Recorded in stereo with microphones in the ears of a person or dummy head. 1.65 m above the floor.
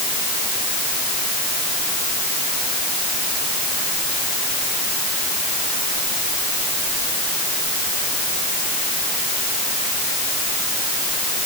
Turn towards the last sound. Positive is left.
No sound to turn to.